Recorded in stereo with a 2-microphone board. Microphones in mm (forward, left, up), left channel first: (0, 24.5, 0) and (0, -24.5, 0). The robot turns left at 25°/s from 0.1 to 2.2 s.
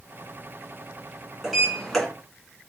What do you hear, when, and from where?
1.4 s a sliding door: centre (ahead or behind), 2 m; by 2.1 s 15° left (ahead or behind), 2 m